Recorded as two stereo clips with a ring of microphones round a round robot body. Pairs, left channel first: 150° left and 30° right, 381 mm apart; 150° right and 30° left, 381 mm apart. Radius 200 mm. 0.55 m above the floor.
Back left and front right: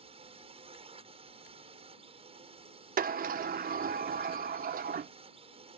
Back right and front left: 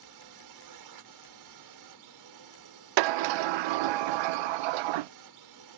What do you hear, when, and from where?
0.0 s a drone: 40° left
3.0 s a sliding door: 40° left